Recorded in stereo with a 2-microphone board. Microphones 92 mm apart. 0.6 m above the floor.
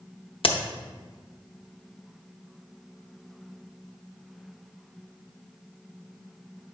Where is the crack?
75° left (ahead or behind), 0.5 m.